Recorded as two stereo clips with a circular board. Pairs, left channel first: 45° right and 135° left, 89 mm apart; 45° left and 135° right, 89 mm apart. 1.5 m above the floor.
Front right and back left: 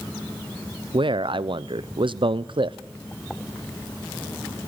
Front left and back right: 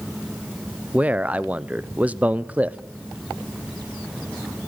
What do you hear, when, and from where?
0.9 s a man speaking: 150° left, 0.7 m